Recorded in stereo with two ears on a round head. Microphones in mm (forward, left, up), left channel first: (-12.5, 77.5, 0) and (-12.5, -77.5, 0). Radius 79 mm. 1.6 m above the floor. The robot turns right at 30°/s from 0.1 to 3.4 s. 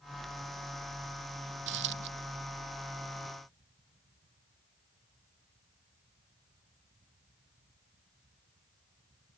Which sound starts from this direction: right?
A dropped coin, at 1.7 s.